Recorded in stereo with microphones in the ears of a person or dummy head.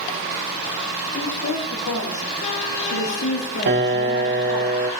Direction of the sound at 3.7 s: 60° right (ahead or behind).